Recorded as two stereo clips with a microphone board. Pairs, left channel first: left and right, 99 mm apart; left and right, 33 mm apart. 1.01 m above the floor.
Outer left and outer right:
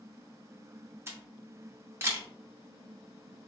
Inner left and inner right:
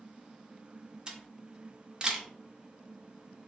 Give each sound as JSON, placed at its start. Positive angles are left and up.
{"t": 1.1, "sound": "a camera shutter", "side_deg": -25, "distance_m": 0.7}